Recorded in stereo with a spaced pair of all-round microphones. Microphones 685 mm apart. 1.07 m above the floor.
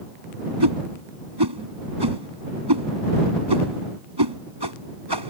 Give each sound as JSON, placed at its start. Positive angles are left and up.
{"t": 0.6, "sound": "a whoosh", "side_deg": -35}